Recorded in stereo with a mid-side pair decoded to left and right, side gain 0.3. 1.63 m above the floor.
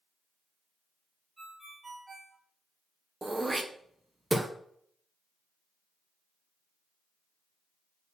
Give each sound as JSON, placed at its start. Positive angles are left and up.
{"t": 1.4, "sound": "a ringtone", "azimuth_deg": -35, "distance_m": 5.0}
{"t": 3.2, "sound": "throat clearing", "azimuth_deg": -25, "distance_m": 1.4}